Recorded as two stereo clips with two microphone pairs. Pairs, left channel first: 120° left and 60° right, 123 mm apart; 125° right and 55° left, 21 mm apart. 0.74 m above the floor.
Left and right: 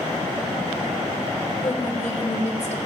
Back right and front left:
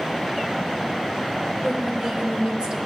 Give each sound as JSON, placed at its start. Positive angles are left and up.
{"t": 1.6, "sound": "a woman speaking", "azimuth_deg": 90, "distance_m": 2.0}